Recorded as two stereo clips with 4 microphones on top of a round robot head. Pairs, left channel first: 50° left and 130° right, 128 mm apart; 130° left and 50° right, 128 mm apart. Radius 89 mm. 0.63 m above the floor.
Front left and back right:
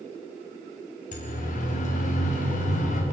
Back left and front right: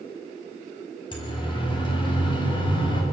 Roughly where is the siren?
Left.